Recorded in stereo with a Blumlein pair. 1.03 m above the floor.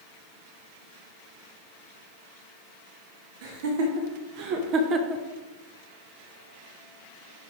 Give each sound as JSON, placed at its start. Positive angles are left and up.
{"t": 3.4, "sound": "laughter", "azimuth_deg": -50, "distance_m": 1.6}